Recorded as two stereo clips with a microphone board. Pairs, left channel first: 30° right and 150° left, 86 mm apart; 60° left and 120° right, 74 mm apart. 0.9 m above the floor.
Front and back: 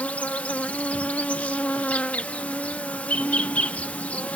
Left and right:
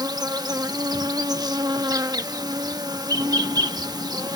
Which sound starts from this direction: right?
An insect, at 0.0 s.